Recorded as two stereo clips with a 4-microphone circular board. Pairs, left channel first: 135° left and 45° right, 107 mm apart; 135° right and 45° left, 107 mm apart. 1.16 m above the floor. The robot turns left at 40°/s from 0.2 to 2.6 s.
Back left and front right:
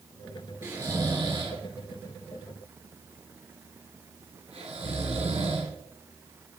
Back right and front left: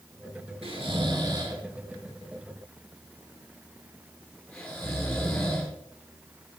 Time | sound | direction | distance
0.6 | snoring | 25° left | 1.9 m